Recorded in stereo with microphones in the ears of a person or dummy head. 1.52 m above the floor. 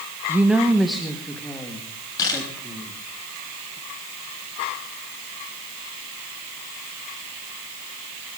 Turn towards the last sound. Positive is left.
turn(degrees=25)  # may be behind; listen again after turning